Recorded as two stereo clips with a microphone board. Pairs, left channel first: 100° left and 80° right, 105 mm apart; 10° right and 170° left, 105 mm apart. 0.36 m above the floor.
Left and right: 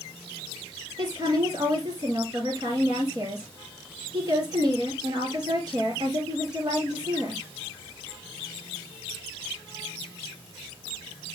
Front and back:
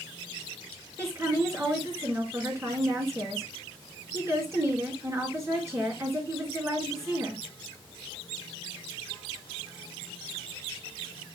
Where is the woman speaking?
130° right, 4.5 m.